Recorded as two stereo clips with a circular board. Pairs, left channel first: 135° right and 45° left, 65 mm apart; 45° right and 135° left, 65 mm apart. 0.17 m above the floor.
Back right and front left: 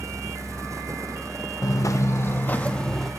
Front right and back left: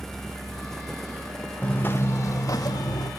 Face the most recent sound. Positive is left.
turn(degrees=-50)